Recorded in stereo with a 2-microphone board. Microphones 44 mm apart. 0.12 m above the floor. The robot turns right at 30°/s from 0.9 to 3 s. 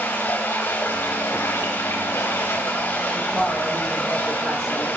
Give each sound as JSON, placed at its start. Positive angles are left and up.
{"t": 0.0, "sound": "running water", "azimuth_deg": 75, "distance_m": 5.0}
{"t": 3.1, "sound": "a woman speaking", "side_deg": -10, "distance_m": 4.5}